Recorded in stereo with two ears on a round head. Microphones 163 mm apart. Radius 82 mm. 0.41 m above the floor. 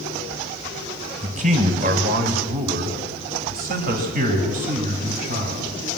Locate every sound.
1.2 s a man speaking: 35° right (ahead or behind), 2 m; by 5.8 s 40° right (ahead or behind), 3.5 m